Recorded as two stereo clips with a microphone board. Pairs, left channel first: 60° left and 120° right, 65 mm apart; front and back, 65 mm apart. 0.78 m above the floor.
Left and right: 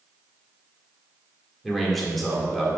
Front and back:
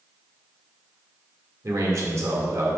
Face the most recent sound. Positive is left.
turn(degrees=150)